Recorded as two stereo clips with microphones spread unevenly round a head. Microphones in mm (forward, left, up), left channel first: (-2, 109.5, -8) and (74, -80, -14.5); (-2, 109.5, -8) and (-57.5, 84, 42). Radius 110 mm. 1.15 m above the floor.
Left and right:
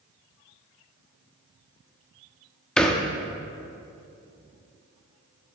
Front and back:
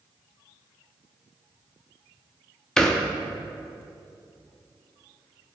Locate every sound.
2.8 s a thud: 165° right, 0.6 m